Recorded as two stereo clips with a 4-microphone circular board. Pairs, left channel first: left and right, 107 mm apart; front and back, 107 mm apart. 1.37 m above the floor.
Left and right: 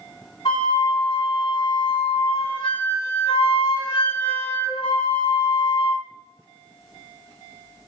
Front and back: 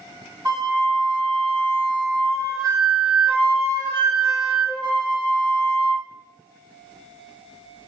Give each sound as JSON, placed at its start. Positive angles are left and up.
{"t": 0.5, "sound": "a flute", "azimuth_deg": 120, "distance_m": 2.5}